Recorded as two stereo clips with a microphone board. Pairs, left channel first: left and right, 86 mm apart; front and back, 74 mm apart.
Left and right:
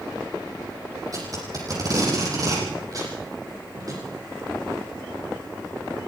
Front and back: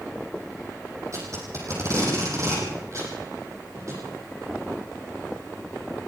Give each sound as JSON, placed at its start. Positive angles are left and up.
{"t": 1.1, "sound": "tape being pulled", "azimuth_deg": -135, "distance_m": 9.0}